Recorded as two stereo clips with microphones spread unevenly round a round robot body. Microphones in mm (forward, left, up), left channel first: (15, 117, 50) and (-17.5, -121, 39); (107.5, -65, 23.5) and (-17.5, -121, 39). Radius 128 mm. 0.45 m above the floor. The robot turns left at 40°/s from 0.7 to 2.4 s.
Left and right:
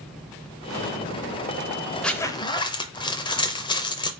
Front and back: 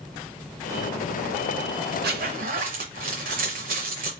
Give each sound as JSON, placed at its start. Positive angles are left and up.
{"t": 2.0, "sound": "a zipper", "azimuth_deg": 170, "distance_m": 0.5}